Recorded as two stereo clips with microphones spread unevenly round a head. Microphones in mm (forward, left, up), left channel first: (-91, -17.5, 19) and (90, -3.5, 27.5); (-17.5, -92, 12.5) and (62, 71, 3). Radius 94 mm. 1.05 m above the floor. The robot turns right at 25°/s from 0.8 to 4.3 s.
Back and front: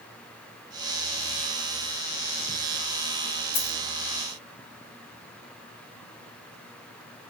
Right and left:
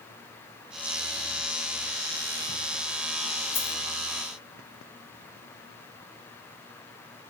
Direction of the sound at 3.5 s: 170° left.